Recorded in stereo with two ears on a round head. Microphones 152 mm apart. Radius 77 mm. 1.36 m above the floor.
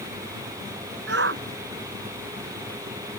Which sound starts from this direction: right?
A shout, at 1.1 s.